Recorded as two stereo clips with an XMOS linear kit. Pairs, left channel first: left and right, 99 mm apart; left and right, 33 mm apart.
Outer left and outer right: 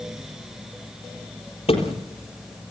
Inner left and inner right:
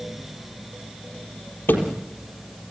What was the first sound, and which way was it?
A thud, 80° left.